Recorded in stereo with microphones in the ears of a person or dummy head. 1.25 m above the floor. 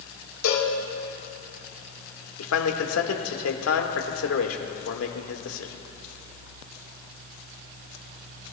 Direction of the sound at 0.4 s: 80° left.